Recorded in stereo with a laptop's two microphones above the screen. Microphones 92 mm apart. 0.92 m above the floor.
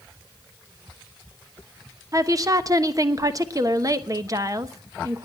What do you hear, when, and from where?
2.1 s a woman speaking: 40° right (ahead or behind), 1.0 m